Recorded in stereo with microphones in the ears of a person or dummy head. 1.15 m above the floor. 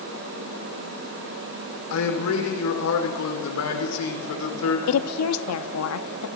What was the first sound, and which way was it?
A man speaking, 75° left (ahead or behind).